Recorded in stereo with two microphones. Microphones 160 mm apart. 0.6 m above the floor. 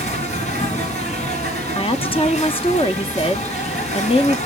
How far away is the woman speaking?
About 0.6 m.